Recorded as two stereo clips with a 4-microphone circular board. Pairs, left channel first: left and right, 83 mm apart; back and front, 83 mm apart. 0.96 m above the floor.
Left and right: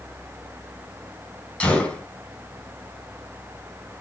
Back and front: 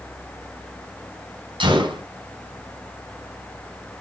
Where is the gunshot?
15° left, 4 m.